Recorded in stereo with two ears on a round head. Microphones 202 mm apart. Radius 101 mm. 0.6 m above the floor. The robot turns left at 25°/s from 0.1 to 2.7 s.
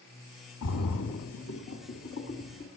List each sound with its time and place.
0.6 s a splash: 85° left, 2.0 m; by 2.7 s 45° left (ahead or behind), 2.0 m